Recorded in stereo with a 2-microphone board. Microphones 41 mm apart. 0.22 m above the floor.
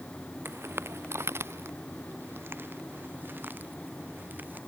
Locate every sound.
0.5 s footsteps: 70° right (ahead or behind); by 4.6 s 50° right (ahead or behind)